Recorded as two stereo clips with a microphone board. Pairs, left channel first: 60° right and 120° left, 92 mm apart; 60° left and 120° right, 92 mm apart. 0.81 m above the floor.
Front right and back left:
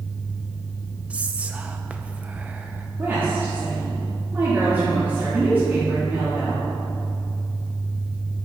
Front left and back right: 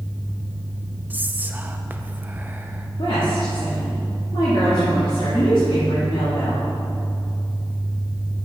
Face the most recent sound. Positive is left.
turn(degrees=55)